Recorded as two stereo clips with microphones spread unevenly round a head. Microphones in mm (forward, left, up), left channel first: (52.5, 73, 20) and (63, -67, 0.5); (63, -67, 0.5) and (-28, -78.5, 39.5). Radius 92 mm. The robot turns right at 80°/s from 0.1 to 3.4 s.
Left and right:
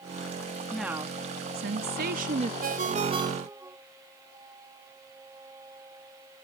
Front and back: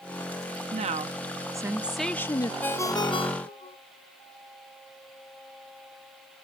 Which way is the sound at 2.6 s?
75° right.